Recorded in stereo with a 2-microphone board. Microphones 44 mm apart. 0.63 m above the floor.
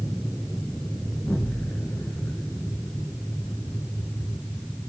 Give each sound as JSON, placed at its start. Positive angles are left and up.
{"t": 1.1, "sound": "an explosion", "side_deg": 80, "distance_m": 3.0}